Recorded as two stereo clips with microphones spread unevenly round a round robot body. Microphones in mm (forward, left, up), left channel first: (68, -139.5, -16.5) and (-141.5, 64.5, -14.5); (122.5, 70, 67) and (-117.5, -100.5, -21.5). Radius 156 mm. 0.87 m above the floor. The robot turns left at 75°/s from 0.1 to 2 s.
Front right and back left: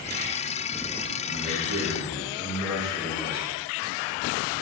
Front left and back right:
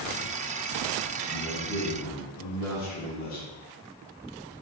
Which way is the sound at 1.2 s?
115° left.